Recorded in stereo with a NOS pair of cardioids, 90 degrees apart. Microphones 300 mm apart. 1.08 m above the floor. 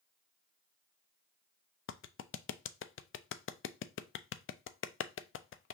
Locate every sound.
1.9 s a clap: 40° left, 0.5 m